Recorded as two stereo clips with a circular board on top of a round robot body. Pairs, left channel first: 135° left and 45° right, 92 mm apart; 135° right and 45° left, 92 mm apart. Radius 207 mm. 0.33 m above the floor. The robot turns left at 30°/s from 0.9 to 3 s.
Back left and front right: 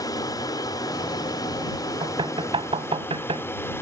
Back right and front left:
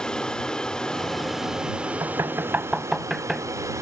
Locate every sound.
0.0 s an aircraft: 145° left; by 3.8 s 85° left
2.0 s knocking: 10° right; by 3.8 s 40° right